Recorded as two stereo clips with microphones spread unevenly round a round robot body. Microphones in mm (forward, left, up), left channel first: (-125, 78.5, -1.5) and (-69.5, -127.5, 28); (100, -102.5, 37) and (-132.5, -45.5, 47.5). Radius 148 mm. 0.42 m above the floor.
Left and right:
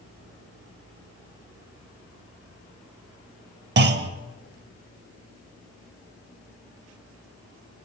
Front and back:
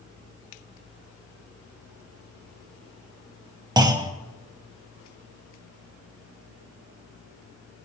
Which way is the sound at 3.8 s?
120° right.